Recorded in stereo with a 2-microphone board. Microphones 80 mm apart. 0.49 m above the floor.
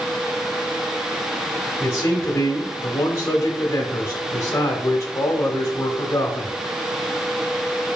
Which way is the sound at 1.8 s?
40° left (ahead or behind).